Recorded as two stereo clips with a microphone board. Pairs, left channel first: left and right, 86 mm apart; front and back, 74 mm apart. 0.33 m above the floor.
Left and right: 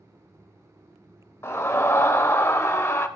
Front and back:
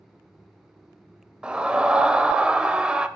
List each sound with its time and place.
1.4 s a scream: 115° left, 1.0 m